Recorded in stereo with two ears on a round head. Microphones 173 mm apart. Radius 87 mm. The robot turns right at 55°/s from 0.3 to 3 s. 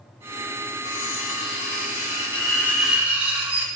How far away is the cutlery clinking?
About 1.6 m.